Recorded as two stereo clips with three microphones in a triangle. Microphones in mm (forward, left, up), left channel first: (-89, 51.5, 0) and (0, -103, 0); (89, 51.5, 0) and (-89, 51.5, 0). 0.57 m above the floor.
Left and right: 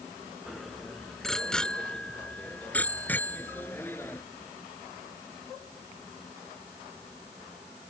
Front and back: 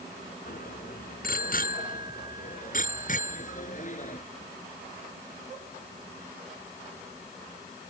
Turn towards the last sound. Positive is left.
turn(degrees=45)